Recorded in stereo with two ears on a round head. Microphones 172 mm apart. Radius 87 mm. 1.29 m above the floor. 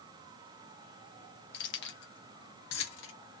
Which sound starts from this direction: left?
Keys jangling, at 1.5 s.